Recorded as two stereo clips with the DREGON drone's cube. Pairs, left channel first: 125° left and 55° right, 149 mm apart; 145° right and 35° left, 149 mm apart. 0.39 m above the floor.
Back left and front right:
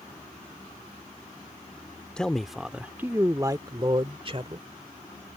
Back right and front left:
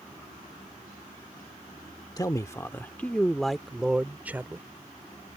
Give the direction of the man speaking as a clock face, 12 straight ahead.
5 o'clock.